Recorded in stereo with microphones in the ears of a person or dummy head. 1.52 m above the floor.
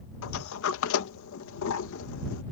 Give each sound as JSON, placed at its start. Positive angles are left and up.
{"t": 0.2, "sound": "a sliding door", "side_deg": 75}